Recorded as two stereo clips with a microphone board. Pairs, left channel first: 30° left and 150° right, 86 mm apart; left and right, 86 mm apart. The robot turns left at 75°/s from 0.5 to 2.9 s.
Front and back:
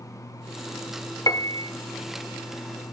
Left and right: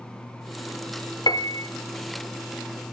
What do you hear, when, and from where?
1.3 s a piano: 70° left, 0.6 m; by 1.7 s 35° left, 0.6 m